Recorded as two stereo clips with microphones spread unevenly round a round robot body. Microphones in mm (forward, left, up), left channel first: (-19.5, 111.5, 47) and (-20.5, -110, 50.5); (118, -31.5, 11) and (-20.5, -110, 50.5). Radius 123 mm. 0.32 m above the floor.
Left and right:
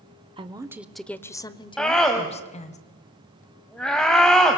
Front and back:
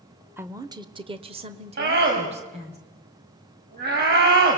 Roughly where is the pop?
No pop in this recording.